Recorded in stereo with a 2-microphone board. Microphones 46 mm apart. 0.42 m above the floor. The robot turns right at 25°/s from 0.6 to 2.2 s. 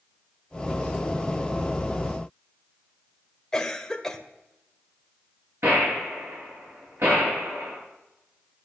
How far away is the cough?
About 1.5 m.